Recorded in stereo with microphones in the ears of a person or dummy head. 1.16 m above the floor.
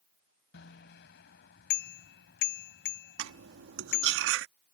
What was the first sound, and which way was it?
A bicycle bell, 65° left (ahead or behind).